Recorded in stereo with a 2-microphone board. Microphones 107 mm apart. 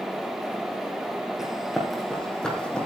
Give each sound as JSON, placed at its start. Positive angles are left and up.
{"t": 1.4, "sound": "running footsteps", "side_deg": -5, "distance_m": 3.0}